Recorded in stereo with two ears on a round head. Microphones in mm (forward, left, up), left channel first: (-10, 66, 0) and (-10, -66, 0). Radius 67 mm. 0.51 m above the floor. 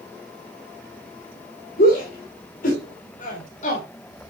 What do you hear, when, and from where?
1.8 s a shout: 60° left (ahead or behind), 2.5 m; by 3.9 s 50° left (ahead or behind), 2.0 m